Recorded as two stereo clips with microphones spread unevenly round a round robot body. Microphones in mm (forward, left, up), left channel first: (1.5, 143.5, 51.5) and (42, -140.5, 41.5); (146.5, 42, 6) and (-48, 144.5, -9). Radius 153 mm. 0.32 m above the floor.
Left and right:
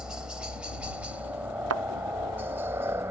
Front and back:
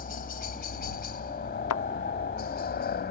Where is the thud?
40° right.